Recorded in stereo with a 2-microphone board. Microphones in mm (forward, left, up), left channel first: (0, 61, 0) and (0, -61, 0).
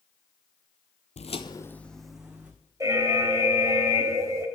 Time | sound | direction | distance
1.2 | footsteps | 65° left (ahead or behind) | 0.6 m
2.8 | an alarm | 25° right (ahead or behind) | 1.4 m